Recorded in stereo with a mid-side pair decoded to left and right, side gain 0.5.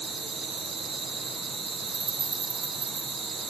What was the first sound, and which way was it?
An insect, 60° right.